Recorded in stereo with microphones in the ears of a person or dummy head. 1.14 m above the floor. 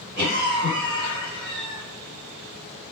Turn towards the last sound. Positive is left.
turn(degrees=-60)  # may be behind; listen again after turning